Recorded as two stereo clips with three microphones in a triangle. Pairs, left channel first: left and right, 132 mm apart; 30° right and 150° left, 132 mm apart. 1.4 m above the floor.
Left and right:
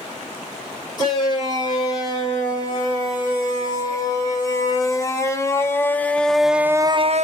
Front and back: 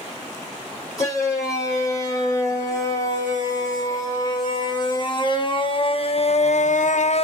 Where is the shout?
35° left, 5.5 m; by 7.2 s 70° right, 0.5 m.